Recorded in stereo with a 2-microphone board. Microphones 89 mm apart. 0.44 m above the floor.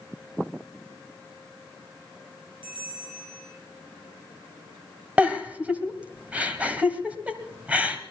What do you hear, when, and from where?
2.6 s a bell: 70° right (ahead or behind), 5.5 m
5.2 s a giggle: 15° right (ahead or behind), 1.5 m